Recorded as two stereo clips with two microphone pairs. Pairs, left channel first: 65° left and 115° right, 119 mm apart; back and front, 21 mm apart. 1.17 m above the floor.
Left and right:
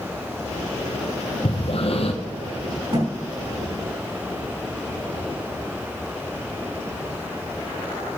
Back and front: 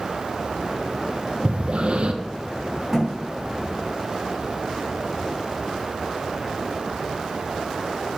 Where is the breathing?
35° left, 0.8 m.